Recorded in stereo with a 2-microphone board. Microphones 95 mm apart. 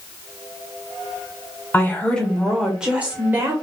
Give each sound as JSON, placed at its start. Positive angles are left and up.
{"t": 1.7, "sound": "a woman speaking", "side_deg": 20, "distance_m": 1.4}